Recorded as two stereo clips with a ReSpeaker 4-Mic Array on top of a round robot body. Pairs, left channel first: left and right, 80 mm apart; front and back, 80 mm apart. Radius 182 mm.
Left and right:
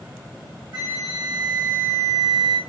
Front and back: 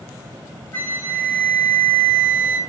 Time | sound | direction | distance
0.7 | a flute | 70° right | 4 m